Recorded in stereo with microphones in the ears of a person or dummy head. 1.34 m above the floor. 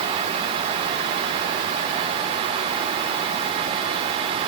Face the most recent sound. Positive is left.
No sound to turn to.